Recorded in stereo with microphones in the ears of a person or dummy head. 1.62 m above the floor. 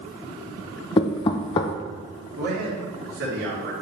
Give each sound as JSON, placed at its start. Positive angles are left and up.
{"t": 1.0, "sound": "knocking", "side_deg": 30, "distance_m": 0.5}
{"t": 2.4, "sound": "a man speaking", "side_deg": -75, "distance_m": 3.5}